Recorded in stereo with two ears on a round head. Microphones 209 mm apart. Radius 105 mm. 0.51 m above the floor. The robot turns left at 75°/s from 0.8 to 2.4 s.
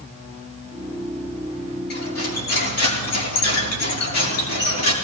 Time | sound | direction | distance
1.9 | cutlery clinking | 135° left | 4.5 m